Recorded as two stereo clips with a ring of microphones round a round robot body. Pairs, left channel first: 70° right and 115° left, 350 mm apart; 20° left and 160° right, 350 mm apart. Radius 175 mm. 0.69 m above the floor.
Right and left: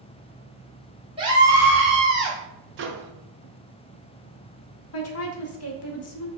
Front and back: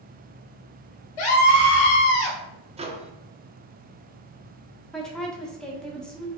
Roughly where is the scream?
Ahead left.